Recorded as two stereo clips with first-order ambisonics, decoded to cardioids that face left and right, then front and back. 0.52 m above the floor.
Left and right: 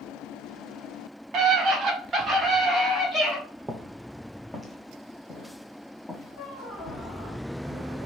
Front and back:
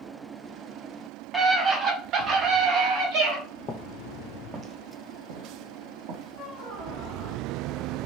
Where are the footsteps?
15° right, 0.5 m; by 7.1 s 165° left, 1.6 m.